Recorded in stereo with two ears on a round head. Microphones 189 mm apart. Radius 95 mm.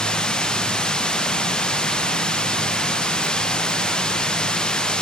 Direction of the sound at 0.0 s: 5° left (ahead or behind).